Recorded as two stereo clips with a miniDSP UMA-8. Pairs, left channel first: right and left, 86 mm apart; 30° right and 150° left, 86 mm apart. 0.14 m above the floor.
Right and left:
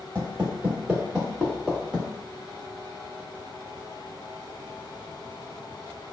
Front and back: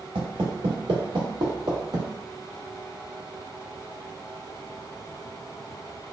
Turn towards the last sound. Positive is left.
turn(degrees=-165)